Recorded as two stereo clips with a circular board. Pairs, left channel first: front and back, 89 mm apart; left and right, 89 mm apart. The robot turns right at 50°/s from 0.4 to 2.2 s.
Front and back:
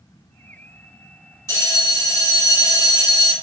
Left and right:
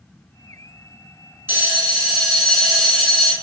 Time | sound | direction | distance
1.5 | a bell | 35° right | 1.8 m